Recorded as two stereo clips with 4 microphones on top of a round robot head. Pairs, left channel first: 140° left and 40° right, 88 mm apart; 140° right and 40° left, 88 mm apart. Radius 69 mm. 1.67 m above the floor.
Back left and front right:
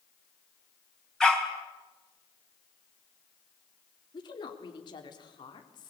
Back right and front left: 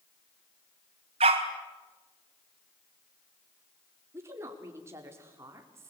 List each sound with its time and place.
1.2 s a dog barking: 60° left, 4 m
4.1 s a woman speaking: 100° left, 4 m